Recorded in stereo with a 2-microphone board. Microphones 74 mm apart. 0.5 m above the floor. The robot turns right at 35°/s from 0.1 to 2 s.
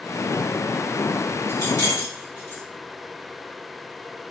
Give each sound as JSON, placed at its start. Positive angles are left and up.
{"t": 1.5, "sound": "keys jangling", "side_deg": 40, "distance_m": 1.6}